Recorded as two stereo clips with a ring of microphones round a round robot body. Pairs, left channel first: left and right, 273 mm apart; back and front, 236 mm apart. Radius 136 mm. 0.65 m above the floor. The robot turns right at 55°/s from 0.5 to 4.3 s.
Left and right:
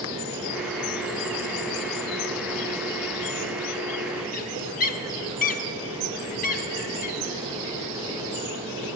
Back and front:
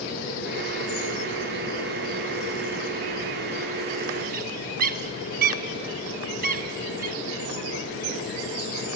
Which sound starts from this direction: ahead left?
A bird, at 4.3 s.